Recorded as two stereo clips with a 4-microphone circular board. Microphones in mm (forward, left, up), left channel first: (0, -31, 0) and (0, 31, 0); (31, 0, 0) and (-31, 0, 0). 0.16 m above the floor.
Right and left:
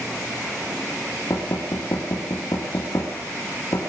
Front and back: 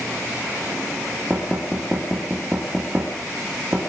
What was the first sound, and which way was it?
Knocking, 110° right.